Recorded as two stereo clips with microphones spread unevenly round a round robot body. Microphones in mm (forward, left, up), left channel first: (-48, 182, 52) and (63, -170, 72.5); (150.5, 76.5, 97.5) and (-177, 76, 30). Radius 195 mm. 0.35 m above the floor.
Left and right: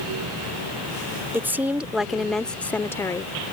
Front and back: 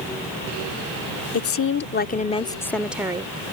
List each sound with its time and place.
1.3 s a woman speaking: 15° left; by 3.5 s 175° left